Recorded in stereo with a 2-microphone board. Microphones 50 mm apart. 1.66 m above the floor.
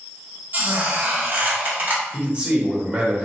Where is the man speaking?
25° right (ahead or behind), 1.6 m.